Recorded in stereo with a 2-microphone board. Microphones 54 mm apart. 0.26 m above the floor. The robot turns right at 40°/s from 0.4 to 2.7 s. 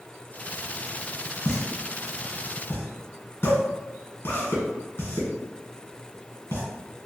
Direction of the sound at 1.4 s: 50° left (ahead or behind).